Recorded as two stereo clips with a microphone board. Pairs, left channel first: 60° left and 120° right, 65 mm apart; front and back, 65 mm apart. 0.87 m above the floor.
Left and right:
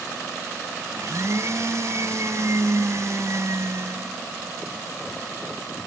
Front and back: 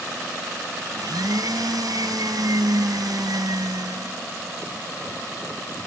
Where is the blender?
160° right.